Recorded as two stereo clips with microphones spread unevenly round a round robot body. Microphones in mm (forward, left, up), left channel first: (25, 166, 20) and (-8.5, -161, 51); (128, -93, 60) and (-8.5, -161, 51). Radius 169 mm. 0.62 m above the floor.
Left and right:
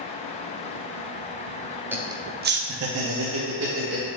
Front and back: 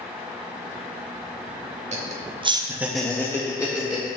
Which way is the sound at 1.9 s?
175° left.